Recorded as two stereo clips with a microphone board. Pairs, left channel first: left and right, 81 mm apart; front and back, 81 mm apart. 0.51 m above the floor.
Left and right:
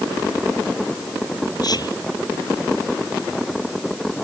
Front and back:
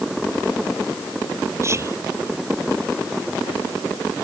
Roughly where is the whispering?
Behind left.